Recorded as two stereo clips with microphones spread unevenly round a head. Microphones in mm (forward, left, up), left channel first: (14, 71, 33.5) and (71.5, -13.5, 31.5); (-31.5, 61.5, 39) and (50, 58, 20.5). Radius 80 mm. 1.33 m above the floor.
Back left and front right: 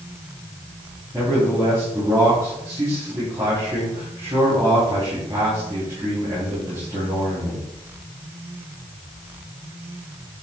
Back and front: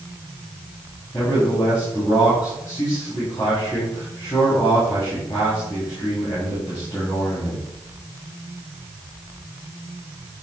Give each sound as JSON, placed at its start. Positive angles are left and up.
{"t": 1.1, "sound": "a man speaking", "azimuth_deg": -120, "distance_m": 3.0}